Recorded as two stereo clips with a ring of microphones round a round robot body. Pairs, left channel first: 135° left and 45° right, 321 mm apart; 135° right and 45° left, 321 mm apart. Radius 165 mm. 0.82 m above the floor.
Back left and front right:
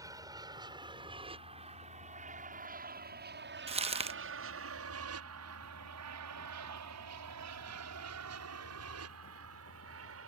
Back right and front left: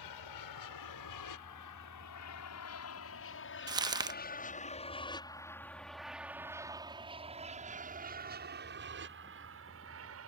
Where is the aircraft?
125° right; by 10.3 s straight ahead.